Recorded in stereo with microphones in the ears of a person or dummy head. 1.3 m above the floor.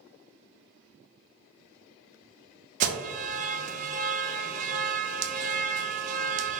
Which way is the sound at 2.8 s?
40° right (ahead or behind).